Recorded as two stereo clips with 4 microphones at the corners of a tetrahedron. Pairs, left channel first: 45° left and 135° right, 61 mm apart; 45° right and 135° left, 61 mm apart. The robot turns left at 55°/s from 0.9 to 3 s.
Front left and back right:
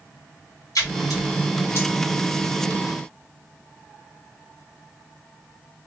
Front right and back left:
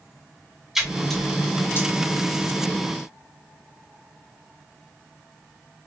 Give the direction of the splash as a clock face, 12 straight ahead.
10 o'clock.